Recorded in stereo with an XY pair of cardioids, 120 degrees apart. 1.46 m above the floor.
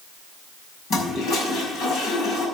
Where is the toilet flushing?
70° left, 5.5 m.